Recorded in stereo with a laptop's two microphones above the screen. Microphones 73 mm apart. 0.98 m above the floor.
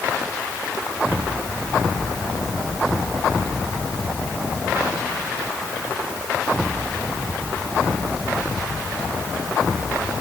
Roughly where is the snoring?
I don't hear snoring.